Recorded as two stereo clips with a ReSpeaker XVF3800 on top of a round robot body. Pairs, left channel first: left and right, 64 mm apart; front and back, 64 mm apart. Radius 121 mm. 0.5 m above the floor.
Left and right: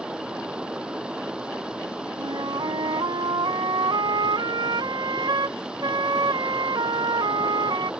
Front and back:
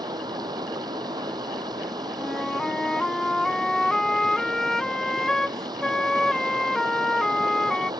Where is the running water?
165° right.